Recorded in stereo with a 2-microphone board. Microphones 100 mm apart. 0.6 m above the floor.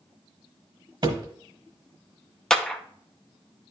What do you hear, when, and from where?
1.0 s a thud: 50° right (ahead or behind), 1.1 m
2.5 s a clap: 5° left (ahead or behind), 0.6 m